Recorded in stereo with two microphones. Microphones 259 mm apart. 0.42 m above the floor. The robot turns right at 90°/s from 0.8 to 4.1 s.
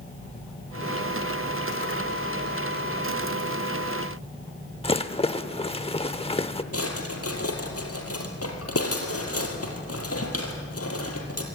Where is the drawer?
65° left (ahead or behind), 3 m.